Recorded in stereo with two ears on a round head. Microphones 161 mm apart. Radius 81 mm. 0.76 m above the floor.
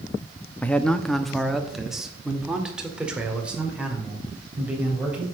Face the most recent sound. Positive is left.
turn(degrees=-10)  # may be behind; listen again after turning